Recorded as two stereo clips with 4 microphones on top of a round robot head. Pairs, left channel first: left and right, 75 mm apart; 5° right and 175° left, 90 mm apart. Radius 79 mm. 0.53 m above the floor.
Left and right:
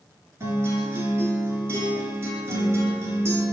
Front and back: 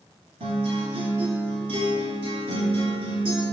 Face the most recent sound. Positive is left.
turn(degrees=-145)